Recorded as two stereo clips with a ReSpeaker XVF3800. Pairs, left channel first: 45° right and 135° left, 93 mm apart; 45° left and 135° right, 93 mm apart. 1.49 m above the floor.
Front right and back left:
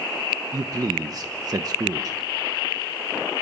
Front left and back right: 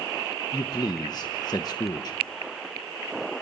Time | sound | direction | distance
0.5 | a man speaking | 90° left | 1.1 m